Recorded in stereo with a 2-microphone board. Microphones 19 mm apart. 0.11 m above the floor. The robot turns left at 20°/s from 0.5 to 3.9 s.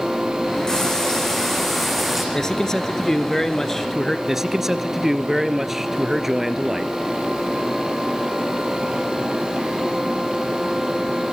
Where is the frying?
30° left, 6.5 m; by 2.2 s straight ahead, 6.5 m.